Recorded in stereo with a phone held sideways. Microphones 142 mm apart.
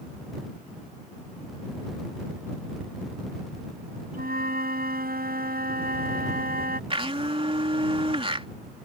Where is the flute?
85° right.